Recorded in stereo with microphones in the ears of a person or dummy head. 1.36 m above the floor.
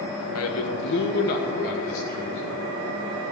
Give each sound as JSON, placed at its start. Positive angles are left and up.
{"t": 0.3, "sound": "a man speaking", "side_deg": 70, "distance_m": 1.0}